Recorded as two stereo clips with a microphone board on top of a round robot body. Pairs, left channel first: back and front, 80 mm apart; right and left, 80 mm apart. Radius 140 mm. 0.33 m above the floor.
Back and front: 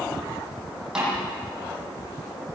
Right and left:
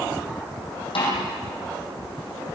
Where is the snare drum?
80° right, 8 m.